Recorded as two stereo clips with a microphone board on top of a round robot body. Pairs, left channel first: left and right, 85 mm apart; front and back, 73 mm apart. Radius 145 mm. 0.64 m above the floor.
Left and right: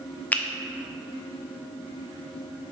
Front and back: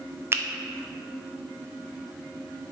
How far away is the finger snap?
About 0.6 m.